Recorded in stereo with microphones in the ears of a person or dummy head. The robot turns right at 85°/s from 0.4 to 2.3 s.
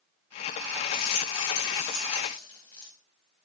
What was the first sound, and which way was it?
A rattle, 50° left.